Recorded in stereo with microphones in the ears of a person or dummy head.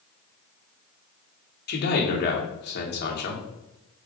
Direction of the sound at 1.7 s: 50° left (ahead or behind).